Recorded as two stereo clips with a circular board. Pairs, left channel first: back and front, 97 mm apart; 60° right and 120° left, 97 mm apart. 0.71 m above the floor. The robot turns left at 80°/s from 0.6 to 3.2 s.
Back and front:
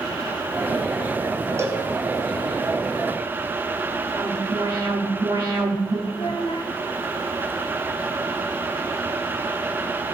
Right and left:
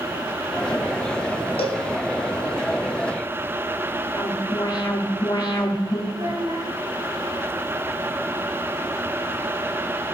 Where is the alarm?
35° right, 1.9 m.